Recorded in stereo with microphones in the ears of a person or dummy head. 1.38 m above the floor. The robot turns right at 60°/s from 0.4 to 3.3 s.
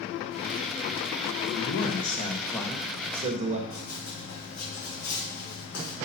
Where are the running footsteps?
60° left (ahead or behind), 4 m; by 6.0 s 70° left (ahead or behind), 4 m.